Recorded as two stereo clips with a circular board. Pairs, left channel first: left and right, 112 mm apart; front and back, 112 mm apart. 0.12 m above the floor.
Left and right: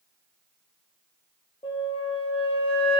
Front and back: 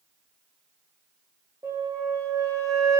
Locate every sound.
1.6 s a flute: 120° left, 0.8 m